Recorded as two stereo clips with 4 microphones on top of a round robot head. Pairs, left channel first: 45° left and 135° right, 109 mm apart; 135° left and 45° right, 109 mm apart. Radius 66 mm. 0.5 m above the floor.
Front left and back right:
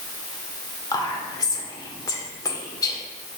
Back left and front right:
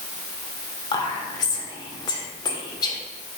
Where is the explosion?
I don't hear an explosion.